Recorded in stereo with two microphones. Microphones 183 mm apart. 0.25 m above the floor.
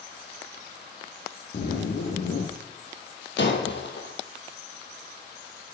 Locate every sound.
1.5 s a zipper: 80° left, 1.9 m
3.4 s breaking glass: 75° left (ahead or behind), 1.5 m